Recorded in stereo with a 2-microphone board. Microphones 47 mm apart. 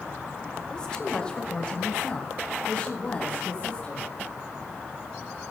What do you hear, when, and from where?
0.7 s a woman speaking: 15° left (ahead or behind), 1.5 m; by 4.1 s 25° left (ahead or behind), 3.5 m